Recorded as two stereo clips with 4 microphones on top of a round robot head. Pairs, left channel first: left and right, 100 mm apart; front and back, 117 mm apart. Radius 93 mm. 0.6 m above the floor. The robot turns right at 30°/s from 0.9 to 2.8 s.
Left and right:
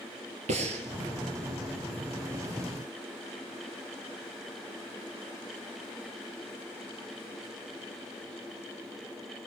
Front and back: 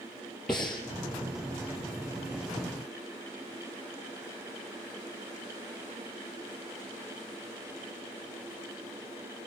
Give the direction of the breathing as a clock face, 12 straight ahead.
3 o'clock.